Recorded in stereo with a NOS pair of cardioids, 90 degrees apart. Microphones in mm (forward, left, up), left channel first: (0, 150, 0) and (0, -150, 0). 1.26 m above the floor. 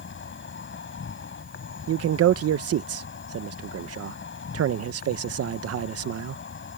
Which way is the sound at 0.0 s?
40° left.